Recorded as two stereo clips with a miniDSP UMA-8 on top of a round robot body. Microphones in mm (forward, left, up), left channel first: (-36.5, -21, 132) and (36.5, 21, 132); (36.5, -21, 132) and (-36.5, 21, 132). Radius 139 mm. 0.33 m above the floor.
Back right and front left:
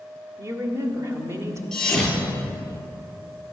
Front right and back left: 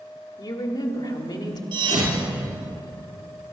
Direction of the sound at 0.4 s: 20° right.